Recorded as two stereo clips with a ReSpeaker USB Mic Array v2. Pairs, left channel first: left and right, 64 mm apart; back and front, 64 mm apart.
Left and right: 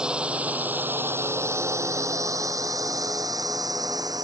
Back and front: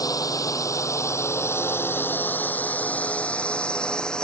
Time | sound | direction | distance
0.0 | a drone | 165° right | ?